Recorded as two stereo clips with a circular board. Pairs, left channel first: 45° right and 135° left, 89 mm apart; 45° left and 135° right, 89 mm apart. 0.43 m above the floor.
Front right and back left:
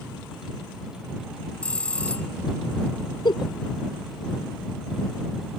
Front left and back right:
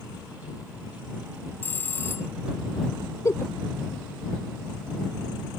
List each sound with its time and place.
1.6 s a bell: 10° left
3.2 s a giggle: 10° right